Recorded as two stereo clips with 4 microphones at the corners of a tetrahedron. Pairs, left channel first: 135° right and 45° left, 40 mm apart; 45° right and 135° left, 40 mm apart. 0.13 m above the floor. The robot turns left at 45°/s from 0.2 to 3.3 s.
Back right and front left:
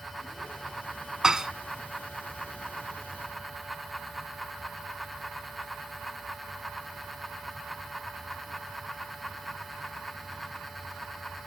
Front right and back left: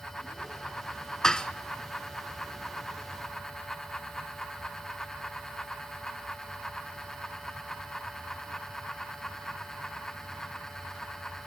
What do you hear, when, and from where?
1.2 s dishes clattering: straight ahead, 0.8 m; by 1.5 s 15° right, 0.8 m